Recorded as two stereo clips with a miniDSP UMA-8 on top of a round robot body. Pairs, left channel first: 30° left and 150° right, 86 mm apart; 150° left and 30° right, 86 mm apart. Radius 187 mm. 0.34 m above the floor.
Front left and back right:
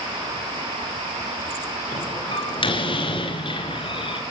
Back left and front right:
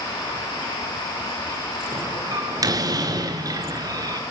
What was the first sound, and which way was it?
A door slam, 15° left.